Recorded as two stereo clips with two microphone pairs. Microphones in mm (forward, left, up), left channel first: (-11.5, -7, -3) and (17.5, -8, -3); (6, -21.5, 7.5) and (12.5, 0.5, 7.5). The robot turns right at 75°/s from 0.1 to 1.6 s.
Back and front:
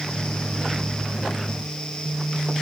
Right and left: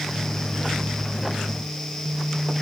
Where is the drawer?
No drawer in this recording.